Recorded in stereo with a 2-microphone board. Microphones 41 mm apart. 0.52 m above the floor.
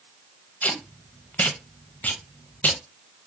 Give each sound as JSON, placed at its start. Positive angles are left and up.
{"t": 0.6, "sound": "tape being pulled", "side_deg": 40, "distance_m": 0.5}